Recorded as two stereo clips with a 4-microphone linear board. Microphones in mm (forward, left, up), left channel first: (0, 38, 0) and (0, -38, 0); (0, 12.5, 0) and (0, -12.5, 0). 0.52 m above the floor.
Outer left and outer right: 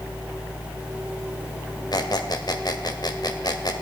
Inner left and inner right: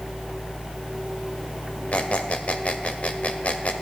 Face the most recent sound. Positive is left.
turn(degrees=60)  # may be behind; listen again after turning